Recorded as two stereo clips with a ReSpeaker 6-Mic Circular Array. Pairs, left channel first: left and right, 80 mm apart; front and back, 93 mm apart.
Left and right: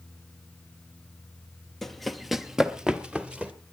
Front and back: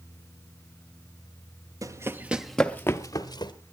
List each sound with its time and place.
1.8 s running footsteps: 175° left, 1.0 m; by 3.5 s 15° right, 1.3 m